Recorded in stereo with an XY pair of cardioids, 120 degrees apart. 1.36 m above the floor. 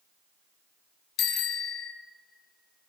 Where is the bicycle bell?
70° left, 2 m.